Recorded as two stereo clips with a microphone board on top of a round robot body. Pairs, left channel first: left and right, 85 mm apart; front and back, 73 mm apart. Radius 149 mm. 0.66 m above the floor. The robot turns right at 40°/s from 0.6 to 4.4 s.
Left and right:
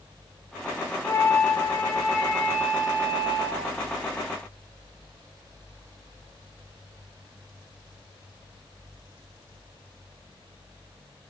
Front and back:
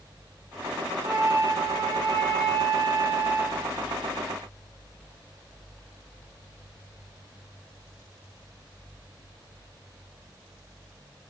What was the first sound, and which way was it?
A flute, 135° left.